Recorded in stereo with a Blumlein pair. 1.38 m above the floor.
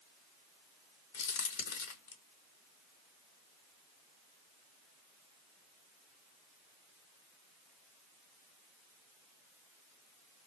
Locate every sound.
1.1 s a crack: 55° left, 0.8 m